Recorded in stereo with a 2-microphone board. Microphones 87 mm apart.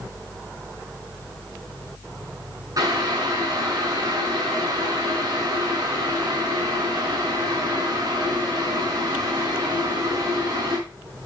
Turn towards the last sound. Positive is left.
turn(degrees=-45)  # may be behind; listen again after turning